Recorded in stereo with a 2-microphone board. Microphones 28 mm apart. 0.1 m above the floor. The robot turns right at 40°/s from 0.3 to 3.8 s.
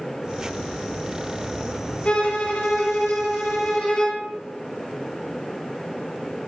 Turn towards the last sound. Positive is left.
turn(degrees=125)